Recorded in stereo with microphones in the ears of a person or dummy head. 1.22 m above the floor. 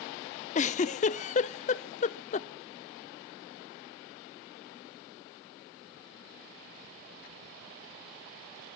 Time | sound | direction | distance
0.6 | a giggle | 35° left (ahead or behind) | 0.5 m